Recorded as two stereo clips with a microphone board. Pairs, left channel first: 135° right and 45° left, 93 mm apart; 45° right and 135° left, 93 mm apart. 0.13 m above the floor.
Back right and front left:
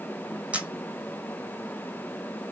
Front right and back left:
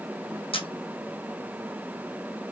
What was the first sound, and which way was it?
A camera shutter, 30° right.